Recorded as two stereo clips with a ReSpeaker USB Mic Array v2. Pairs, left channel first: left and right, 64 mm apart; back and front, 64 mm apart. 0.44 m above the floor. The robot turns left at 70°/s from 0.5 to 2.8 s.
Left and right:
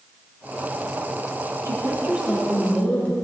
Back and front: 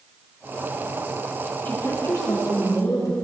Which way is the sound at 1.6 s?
120° right.